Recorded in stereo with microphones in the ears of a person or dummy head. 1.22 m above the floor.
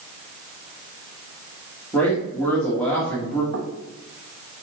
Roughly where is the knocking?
Right.